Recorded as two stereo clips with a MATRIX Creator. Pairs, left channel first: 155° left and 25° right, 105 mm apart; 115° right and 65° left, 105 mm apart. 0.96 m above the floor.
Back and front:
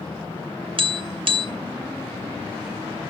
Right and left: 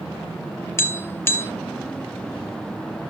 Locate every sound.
0.8 s tapping: 50° right, 0.8 m